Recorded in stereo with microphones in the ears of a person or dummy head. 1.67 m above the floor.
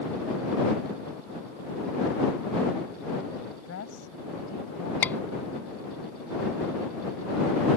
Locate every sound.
3.6 s a woman speaking: 90° left
5.0 s a scream: 10° left (ahead or behind)